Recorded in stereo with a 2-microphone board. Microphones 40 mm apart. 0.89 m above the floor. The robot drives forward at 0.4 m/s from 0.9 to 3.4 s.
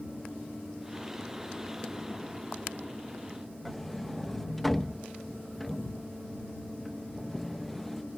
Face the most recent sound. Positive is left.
turn(degrees=5)  # may be behind; listen again after turning